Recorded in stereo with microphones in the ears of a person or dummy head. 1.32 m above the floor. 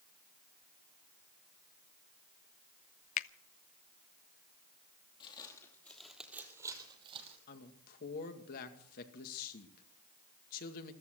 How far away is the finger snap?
About 0.5 m.